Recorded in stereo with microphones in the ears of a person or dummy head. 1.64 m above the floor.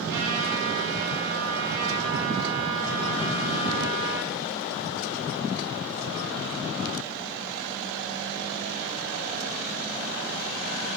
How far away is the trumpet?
About 2.5 m.